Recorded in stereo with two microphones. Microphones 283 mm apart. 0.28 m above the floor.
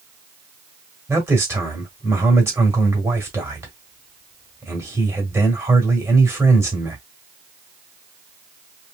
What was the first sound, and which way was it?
A man speaking, 10° right (ahead or behind).